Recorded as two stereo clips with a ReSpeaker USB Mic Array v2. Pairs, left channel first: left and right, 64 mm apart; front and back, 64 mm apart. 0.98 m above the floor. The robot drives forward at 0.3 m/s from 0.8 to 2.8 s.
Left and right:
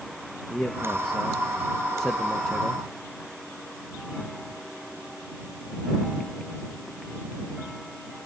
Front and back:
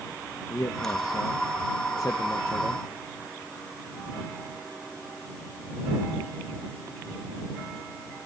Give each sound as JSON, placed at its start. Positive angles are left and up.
{"t": 0.5, "sound": "a man speaking", "azimuth_deg": 5, "distance_m": 1.3}